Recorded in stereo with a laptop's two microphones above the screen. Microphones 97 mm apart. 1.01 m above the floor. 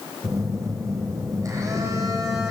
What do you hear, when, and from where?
0.2 s a phone buzzing: 35° right (ahead or behind), 5 m